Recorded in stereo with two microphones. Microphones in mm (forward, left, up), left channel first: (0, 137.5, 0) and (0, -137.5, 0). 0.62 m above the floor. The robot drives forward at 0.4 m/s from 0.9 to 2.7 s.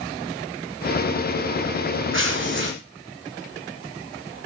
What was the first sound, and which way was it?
Tearing paper, 45° right (ahead or behind).